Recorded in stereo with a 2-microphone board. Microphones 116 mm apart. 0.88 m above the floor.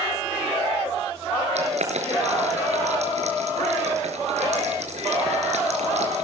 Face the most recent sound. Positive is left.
turn(degrees=-75)  # may be behind; listen again after turning